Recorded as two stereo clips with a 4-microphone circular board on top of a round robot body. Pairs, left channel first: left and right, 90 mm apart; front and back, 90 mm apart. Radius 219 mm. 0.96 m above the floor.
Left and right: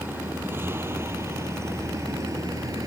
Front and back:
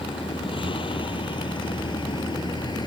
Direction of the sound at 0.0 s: 20° right.